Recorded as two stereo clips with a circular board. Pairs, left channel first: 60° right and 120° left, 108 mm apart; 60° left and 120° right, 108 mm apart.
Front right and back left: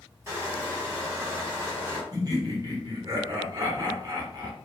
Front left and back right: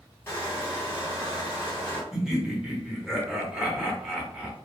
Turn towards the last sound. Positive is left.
turn(degrees=155)